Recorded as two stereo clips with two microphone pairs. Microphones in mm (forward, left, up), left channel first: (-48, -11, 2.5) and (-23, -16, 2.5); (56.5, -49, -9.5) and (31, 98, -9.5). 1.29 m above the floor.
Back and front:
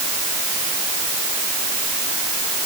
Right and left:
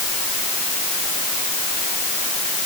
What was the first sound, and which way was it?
Only background noise.